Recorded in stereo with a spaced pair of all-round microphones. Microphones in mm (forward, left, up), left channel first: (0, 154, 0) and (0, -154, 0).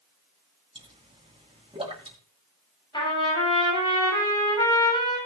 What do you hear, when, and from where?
0.8 s a pop: 20° right (ahead or behind), 3 m
2.9 s a trumpet: 15° left (ahead or behind), 7.5 m